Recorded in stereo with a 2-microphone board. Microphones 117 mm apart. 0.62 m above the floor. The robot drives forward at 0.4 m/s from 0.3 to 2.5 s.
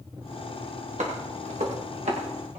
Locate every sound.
1.0 s footsteps: 85° right, 7 m